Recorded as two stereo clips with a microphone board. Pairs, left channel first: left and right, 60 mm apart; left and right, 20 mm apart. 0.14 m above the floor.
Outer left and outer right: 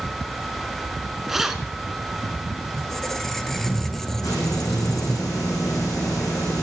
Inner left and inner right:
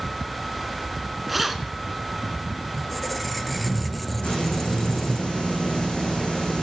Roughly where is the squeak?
Centre.